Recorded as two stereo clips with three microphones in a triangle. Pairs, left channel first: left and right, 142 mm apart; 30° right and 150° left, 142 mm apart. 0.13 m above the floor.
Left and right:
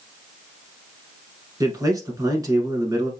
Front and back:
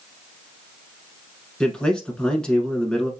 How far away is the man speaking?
About 1.1 m.